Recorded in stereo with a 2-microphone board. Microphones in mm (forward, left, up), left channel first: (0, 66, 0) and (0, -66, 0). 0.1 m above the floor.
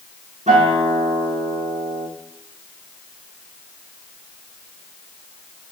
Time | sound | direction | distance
0.5 | a guitar | 65° right (ahead or behind) | 3.5 m